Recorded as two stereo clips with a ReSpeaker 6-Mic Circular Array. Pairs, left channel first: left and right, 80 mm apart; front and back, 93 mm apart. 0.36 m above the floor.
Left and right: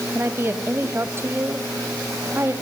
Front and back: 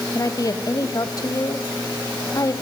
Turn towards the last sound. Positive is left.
turn(degrees=-35)